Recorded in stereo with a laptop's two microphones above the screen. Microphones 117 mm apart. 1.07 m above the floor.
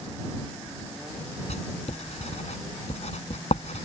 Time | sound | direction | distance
1.5 | writing | 65° left (ahead or behind) | ?